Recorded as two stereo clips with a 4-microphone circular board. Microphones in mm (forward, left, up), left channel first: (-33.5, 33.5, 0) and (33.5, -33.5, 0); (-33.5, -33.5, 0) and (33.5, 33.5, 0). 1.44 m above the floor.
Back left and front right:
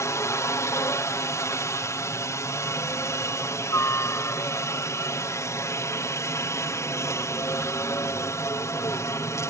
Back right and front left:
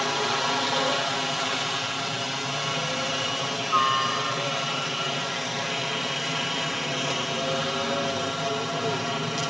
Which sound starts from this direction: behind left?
A helicopter, at 0.0 s.